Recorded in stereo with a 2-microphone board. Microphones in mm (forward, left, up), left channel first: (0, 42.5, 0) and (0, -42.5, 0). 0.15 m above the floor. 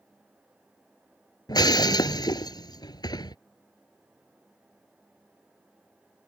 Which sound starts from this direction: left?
Breaking glass, at 1.5 s.